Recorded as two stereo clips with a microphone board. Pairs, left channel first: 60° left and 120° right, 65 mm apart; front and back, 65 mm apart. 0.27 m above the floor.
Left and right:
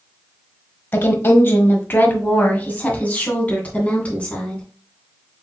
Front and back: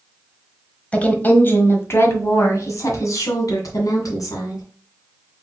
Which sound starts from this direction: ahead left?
A woman speaking, at 0.9 s.